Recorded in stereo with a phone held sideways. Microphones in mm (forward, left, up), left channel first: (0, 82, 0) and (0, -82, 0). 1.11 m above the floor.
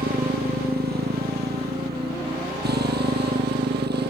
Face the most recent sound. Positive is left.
turn(degrees=-85)